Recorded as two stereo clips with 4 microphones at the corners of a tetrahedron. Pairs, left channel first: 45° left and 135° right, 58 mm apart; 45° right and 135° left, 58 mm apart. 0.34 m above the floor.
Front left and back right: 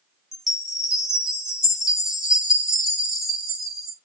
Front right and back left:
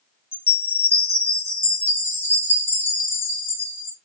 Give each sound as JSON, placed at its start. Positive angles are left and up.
{"t": 0.3, "sound": "a chime", "azimuth_deg": -55, "distance_m": 1.9}